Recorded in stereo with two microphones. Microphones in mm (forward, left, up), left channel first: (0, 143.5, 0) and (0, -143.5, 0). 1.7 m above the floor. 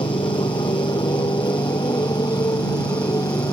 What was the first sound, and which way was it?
A motorcycle, 15° left (ahead or behind).